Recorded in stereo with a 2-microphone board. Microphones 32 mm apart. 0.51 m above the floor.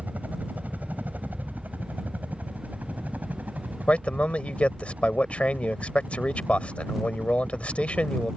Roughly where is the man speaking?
Left.